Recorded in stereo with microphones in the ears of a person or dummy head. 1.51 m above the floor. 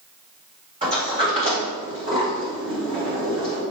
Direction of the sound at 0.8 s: 35° right (ahead or behind).